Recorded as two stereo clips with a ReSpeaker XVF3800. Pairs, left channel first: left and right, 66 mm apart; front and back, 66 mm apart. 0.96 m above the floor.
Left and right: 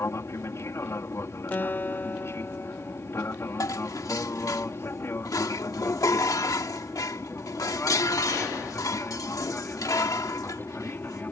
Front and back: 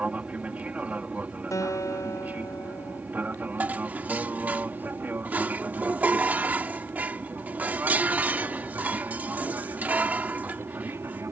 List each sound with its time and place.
0.0 s an aircraft: 115° left; by 11.3 s 140° left
1.5 s a guitar: 30° left
3.6 s dishes clattering: 115° left